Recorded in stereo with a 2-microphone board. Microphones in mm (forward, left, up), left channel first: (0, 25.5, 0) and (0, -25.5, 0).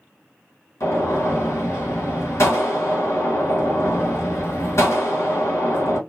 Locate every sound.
0.8 s a gunshot: 65° left (ahead or behind), 1.2 m